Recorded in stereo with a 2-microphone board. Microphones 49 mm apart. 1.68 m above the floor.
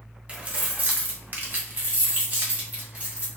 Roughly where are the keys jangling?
Right.